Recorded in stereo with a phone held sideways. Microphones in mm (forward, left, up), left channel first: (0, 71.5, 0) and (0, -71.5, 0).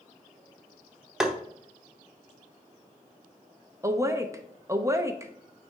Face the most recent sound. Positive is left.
turn(degrees=-20)  # may be behind; listen again after turning